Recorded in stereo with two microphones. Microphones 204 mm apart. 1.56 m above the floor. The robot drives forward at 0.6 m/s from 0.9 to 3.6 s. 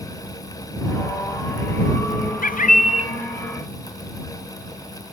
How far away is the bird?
About 0.6 m.